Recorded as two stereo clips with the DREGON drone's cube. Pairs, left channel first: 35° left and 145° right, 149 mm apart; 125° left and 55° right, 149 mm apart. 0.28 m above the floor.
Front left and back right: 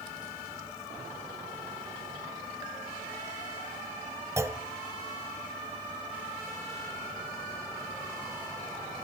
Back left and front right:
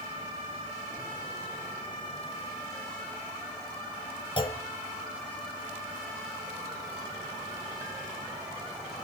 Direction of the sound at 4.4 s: 155° left.